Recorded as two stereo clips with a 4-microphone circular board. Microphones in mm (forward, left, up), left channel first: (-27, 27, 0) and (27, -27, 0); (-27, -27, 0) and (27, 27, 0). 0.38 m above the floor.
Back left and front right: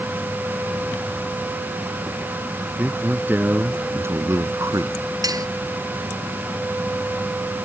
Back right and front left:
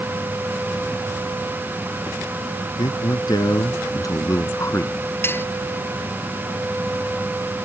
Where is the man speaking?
115° right; by 5.0 s 80° right.